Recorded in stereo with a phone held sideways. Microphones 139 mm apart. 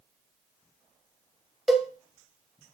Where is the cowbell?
Centre (ahead or behind), 0.9 m.